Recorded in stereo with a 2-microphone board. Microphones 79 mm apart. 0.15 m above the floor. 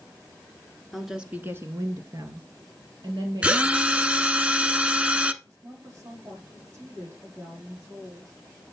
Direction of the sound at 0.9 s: Centre (ahead or behind).